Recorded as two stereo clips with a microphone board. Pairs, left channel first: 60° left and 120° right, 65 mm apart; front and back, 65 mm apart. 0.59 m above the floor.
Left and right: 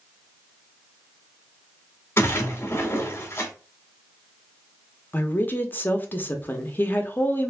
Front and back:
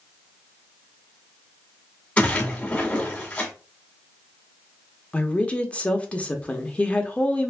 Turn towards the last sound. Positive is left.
turn(degrees=50)